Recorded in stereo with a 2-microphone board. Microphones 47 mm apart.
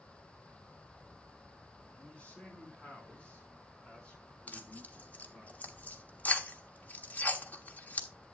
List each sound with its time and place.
2.0 s a man speaking: 30° left (ahead or behind), 6 m; by 5.5 s 20° left (ahead or behind), 7.5 m
4.5 s tearing paper: 35° left (ahead or behind), 1.2 m